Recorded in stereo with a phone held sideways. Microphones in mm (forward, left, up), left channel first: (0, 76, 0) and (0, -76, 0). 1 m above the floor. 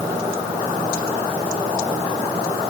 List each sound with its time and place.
Only background noise.